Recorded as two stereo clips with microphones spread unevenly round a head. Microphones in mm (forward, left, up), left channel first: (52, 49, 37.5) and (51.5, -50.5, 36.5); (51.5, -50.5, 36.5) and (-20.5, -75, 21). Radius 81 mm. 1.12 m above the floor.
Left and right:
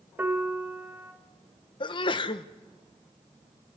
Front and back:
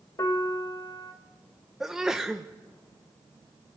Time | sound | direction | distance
0.2 | a piano | 20° right | 2 m
1.8 | a sneeze | 120° left | 1.0 m